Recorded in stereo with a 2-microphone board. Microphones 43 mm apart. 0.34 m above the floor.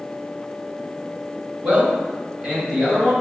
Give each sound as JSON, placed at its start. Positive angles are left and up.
{"t": 1.6, "sound": "a man speaking", "side_deg": -35, "distance_m": 1.6}